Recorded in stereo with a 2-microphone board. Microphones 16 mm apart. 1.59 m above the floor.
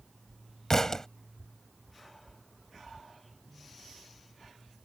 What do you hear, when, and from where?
0.7 s a thud: 30° left (ahead or behind)